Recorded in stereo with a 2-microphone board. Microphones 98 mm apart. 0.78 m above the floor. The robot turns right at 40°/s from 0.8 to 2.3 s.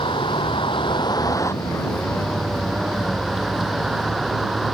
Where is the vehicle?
120° left; by 4.7 s straight behind.